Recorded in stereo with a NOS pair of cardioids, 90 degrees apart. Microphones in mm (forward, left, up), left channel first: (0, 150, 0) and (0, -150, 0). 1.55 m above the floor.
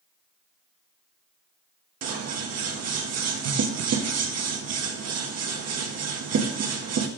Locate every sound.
2.0 s scissors: 55° right, 1.3 m